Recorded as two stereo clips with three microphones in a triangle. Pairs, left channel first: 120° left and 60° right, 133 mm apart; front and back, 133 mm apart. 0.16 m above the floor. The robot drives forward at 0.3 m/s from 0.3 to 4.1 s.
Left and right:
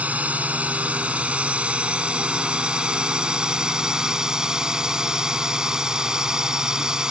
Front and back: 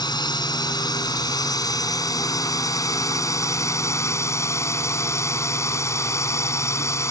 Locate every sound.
0.0 s a drone: 10° left; by 7.1 s 15° left